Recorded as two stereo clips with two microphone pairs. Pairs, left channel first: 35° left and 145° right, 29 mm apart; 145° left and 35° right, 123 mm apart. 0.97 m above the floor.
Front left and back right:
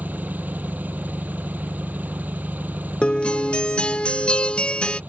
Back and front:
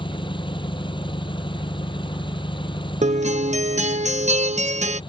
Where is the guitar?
15° right.